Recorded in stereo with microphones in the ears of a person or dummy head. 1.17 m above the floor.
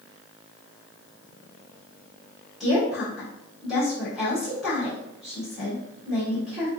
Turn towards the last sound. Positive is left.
turn(degrees=5)  # may be behind; listen again after turning